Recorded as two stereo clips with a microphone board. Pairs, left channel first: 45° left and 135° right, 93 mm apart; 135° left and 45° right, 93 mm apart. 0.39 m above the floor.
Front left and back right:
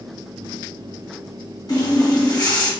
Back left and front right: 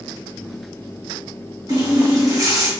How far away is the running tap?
About 1.5 m.